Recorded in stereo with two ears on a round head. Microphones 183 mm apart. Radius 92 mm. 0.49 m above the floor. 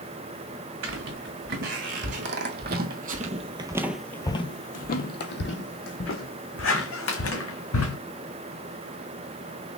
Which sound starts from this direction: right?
Footsteps, at 0.8 s.